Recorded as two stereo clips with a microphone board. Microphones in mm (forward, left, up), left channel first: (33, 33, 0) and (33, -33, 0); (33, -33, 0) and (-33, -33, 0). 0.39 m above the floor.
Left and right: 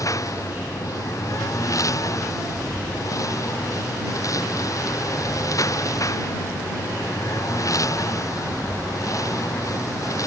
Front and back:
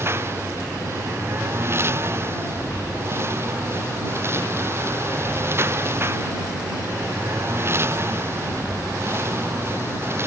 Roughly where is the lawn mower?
Behind left.